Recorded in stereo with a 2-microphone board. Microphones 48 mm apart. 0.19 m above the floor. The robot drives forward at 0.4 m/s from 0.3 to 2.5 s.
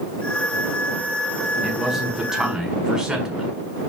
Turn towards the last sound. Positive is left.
turn(degrees=-10)  # may be behind; listen again after turning